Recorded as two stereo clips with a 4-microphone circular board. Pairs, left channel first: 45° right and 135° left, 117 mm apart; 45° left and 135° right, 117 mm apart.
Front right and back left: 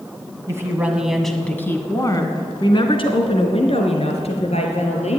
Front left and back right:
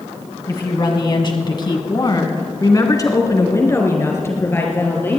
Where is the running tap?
I don't hear a running tap.